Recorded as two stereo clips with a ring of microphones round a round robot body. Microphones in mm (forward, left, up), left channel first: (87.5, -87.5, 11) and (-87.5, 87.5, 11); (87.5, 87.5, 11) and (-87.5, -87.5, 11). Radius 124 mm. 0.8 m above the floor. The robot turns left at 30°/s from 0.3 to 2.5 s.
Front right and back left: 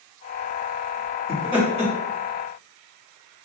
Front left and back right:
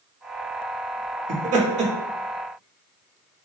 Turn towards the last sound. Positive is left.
turn(degrees=175)